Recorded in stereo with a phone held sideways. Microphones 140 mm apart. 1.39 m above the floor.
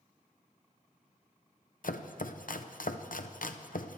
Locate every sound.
1.8 s chopping: 75° left (ahead or behind), 0.8 m